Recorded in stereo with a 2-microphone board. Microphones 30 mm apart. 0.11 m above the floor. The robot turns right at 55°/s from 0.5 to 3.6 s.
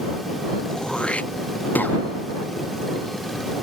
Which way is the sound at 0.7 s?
15° left (ahead or behind).